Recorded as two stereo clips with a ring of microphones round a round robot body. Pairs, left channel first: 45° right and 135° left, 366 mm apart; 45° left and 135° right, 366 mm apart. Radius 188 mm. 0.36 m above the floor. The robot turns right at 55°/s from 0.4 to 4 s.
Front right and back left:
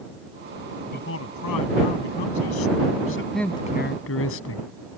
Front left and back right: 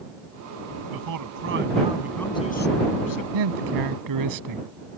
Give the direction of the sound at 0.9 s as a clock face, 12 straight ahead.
4 o'clock.